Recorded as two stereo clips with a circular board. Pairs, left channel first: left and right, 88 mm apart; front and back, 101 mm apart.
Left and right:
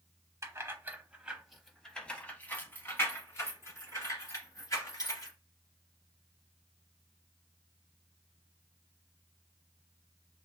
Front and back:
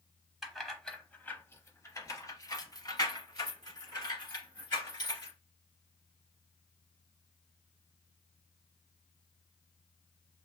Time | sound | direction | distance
0.4 | keys jangling | 95° right | 0.8 m